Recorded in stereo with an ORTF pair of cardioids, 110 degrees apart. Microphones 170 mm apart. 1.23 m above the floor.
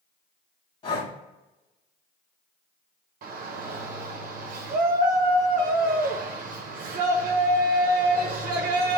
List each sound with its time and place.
0.8 s breathing: 35° left, 1.8 m
3.2 s a shout: 55° right, 0.9 m